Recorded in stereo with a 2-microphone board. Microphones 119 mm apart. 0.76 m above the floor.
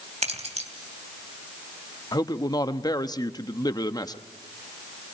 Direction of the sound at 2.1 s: 35° left (ahead or behind).